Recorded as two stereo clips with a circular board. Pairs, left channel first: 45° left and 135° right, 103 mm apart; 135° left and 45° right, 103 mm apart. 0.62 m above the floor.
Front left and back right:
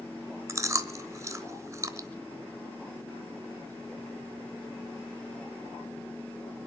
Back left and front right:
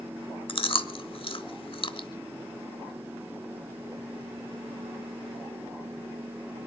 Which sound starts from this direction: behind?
Chewing, at 0.5 s.